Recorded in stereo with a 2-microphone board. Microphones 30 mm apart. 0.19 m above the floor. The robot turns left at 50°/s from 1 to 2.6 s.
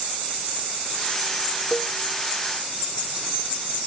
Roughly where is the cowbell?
Centre.